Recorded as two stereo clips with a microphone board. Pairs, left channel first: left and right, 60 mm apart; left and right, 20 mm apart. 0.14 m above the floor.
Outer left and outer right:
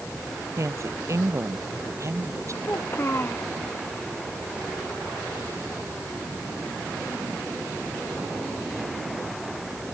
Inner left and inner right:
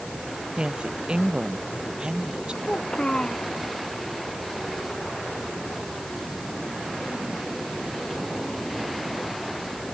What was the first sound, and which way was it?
A woman speaking, 55° right (ahead or behind).